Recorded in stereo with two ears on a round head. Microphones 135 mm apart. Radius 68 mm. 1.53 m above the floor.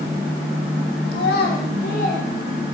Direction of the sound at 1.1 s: 75° left (ahead or behind).